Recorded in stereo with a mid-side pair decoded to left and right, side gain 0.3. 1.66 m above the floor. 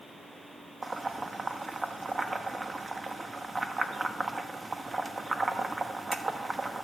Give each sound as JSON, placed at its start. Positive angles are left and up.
{"t": 0.8, "sound": "boiling", "azimuth_deg": -30, "distance_m": 1.0}